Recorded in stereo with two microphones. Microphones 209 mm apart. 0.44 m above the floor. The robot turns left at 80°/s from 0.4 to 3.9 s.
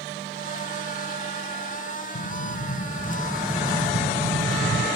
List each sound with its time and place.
2.1 s an explosion: 100° left, 0.5 m; by 4.9 s 40° right, 0.5 m